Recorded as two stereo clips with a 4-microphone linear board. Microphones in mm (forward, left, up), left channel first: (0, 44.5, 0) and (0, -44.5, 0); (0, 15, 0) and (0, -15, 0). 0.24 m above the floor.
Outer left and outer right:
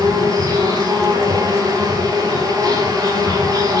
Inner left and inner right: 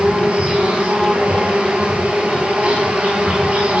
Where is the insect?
45° right (ahead or behind), 1.6 m.